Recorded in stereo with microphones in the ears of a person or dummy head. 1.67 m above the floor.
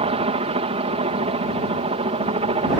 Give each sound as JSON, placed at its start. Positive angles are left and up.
{"t": 0.0, "sound": "a helicopter", "side_deg": -30}